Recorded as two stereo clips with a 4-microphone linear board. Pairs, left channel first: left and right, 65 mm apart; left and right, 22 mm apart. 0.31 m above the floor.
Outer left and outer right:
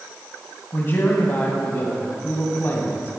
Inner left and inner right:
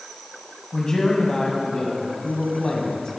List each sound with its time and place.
0.7 s a man speaking: 35° left (ahead or behind), 1.9 m